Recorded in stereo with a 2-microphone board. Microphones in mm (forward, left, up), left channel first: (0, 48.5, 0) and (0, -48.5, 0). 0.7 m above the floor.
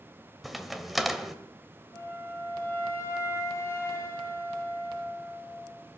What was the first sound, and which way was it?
A crack, centre (ahead or behind).